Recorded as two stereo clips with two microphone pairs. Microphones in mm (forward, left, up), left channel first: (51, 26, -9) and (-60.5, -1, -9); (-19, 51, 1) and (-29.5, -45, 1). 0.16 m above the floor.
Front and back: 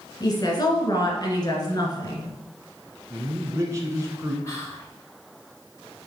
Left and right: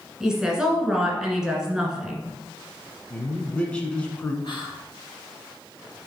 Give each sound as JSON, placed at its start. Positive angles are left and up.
{"t": 0.2, "sound": "a woman speaking", "azimuth_deg": -15, "distance_m": 1.7}
{"t": 3.1, "sound": "a man speaking", "azimuth_deg": 155, "distance_m": 1.5}
{"t": 4.4, "sound": "whispering", "azimuth_deg": 70, "distance_m": 3.5}